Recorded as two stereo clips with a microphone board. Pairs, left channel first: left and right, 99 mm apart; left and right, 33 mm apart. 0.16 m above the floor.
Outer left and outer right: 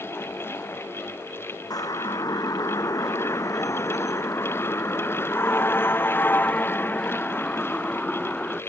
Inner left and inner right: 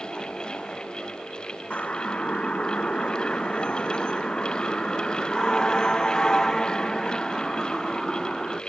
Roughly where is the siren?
Left.